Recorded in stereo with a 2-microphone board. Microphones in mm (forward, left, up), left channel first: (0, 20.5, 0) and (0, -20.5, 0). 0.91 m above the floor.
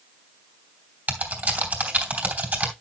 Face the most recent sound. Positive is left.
turn(degrees=-40)  # may be behind; listen again after turning